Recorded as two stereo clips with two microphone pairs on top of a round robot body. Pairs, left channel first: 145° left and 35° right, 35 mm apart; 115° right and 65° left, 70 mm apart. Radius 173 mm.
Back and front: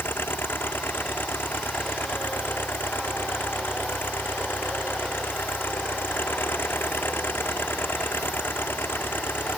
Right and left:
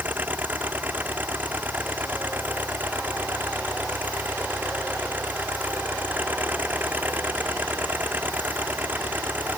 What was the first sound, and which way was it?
An engine running, 130° left.